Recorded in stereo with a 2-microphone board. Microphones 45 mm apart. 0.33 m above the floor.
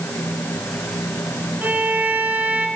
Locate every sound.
1.6 s a violin: 40° right (ahead or behind), 3.5 m